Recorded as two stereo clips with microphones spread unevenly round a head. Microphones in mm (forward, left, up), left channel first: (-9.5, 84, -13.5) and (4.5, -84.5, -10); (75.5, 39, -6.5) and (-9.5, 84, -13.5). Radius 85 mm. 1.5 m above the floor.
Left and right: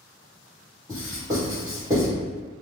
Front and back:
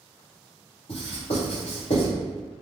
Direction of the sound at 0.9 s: 15° right.